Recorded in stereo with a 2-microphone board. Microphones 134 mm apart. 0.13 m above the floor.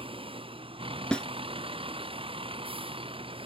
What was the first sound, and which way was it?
A vehicle, 40° right (ahead or behind).